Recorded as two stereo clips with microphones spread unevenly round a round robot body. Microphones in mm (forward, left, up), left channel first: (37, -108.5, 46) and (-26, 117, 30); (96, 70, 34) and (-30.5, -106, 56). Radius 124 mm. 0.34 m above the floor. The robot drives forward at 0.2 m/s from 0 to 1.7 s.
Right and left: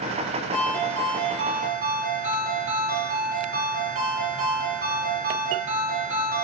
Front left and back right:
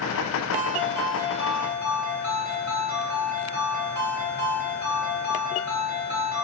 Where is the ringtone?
160° left, 1.4 m.